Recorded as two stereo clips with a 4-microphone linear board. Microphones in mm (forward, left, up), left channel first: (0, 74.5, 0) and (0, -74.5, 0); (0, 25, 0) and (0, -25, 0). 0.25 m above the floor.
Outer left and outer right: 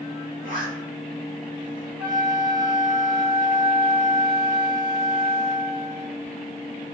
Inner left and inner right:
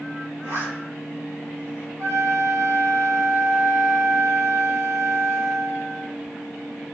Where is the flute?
85° right, 3 m.